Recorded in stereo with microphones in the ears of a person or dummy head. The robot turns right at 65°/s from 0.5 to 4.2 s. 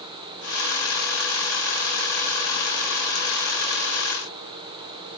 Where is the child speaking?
I don't hear a child speaking.